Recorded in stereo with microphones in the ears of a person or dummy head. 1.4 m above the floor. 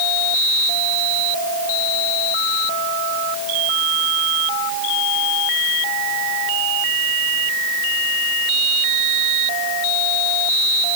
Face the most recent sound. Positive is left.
No sound to turn to.